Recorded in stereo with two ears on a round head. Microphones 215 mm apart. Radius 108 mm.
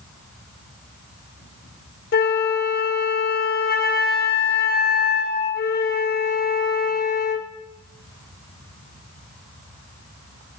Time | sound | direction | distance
2.1 | a flute | 40° left (ahead or behind) | 0.6 m